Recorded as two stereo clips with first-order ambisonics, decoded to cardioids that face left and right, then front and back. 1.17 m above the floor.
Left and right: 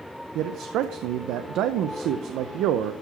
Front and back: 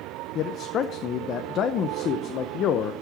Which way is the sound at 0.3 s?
50° right.